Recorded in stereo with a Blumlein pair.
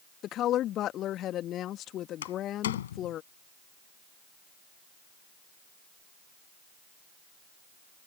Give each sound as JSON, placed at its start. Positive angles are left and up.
{"t": 0.2, "sound": "a woman speaking", "azimuth_deg": 30}
{"t": 2.2, "sound": "a door slam", "azimuth_deg": 60}